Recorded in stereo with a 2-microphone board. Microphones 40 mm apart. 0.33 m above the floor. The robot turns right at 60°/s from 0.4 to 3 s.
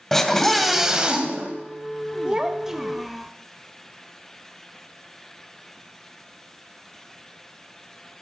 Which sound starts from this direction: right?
A child speaking, at 2.2 s.